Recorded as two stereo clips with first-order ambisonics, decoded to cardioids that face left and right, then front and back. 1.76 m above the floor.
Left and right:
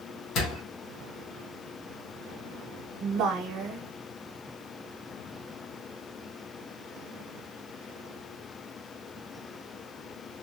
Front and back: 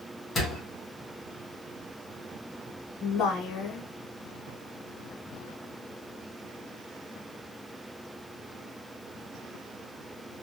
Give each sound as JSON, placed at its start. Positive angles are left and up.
{"t": 0.3, "sound": "a door slam", "azimuth_deg": 65, "distance_m": 1.1}
{"t": 3.0, "sound": "a woman speaking", "azimuth_deg": -50, "distance_m": 1.0}